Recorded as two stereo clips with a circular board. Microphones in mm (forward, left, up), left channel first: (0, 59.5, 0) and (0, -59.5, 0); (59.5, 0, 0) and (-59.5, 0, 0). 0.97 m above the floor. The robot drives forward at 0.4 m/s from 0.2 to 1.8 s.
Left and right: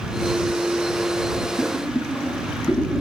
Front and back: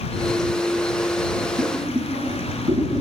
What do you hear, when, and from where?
1.6 s boiling: 170° left, 3.5 m